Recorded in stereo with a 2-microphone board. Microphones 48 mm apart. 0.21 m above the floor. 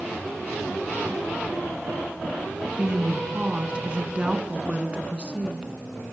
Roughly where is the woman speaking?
Right.